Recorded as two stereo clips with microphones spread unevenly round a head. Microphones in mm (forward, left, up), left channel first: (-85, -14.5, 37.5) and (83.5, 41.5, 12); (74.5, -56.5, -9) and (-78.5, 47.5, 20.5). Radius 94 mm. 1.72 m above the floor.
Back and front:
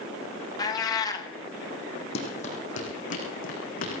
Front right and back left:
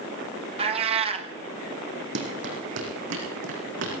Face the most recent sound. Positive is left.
turn(degrees=160)